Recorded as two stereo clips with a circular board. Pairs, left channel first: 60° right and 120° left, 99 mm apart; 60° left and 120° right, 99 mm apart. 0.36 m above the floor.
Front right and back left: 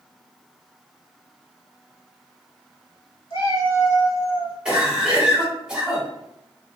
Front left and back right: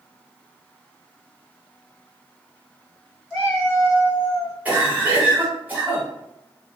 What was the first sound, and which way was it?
A cat meowing, 30° right.